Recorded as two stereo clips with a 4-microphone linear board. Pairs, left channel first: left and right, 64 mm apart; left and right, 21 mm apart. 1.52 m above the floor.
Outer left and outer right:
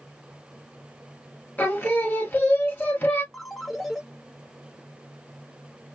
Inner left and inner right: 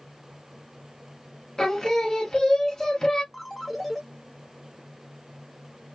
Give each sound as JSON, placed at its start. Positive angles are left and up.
{"t": 1.6, "sound": "singing", "side_deg": 30, "distance_m": 1.3}
{"t": 3.3, "sound": "a ringtone", "side_deg": 0, "distance_m": 0.8}